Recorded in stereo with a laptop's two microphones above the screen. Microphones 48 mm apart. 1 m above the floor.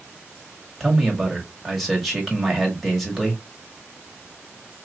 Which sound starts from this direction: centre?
A man speaking, at 0.8 s.